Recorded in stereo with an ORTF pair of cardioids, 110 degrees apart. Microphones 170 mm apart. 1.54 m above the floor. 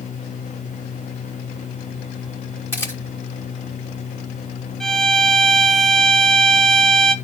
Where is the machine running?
45° left, 2.0 m.